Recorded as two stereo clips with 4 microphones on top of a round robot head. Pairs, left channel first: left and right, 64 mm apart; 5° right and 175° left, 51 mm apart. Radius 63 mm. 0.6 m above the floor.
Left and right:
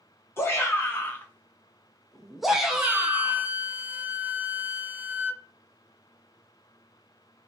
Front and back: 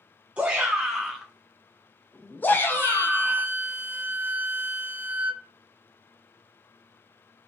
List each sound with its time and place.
0.4 s a shout: 115° left, 1.3 m; by 3.5 s 20° right, 1.5 m
2.7 s a flute: 145° right, 0.6 m